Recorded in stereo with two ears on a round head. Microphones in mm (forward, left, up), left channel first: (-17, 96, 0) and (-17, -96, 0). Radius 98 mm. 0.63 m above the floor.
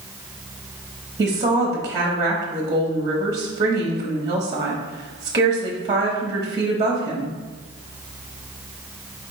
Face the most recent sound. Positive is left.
turn(degrees=-20)  # may be behind; listen again after turning